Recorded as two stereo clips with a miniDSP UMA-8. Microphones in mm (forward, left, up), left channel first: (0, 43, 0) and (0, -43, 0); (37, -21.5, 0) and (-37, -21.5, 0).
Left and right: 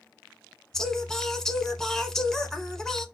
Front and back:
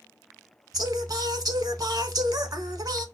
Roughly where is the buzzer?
No buzzer in this recording.